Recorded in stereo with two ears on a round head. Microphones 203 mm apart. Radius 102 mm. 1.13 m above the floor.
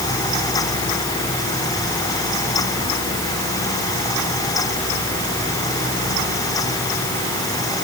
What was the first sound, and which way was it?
Only background noise.